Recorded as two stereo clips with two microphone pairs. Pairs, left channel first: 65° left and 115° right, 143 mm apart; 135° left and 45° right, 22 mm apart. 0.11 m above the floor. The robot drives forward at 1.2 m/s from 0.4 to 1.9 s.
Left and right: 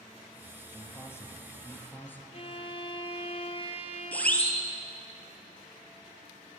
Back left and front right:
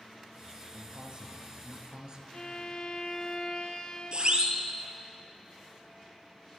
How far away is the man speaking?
About 3.5 m.